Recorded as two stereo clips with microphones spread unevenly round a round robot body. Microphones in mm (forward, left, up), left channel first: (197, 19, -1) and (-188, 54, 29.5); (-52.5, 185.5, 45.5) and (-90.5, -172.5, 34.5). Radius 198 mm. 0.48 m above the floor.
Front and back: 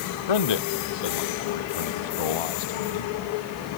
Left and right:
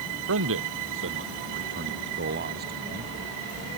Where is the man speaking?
35° right; by 3.1 s 25° right.